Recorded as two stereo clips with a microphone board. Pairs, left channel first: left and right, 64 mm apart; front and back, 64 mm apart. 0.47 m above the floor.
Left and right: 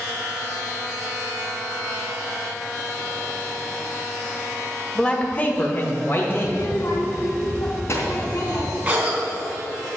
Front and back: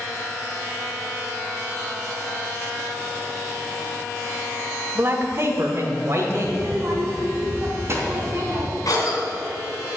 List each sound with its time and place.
5.0 s a man speaking: 160° left, 1.3 m; by 6.6 s 140° left, 2.5 m
6.4 s a child speaking: 135° left, 3 m
8.8 s a cough: 25° right, 3.5 m